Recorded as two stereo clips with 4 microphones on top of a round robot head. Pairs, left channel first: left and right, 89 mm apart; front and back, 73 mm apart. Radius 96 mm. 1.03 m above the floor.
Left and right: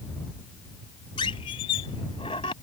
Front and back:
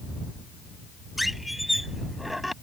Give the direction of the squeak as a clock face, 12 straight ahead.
9 o'clock.